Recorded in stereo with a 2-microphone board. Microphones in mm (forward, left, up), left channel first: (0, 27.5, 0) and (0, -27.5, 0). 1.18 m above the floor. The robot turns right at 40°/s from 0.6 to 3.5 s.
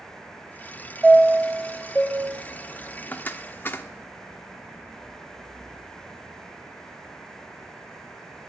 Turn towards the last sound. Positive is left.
turn(degrees=40)  # may be behind; listen again after turning